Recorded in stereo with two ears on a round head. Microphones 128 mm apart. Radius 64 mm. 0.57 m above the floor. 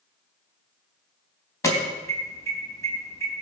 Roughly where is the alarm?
Left.